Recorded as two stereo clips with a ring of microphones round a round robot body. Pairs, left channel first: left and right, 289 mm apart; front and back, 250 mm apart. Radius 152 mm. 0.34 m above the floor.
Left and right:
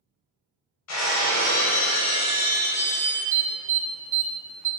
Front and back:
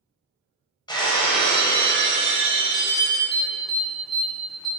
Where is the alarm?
90° right, 0.7 m.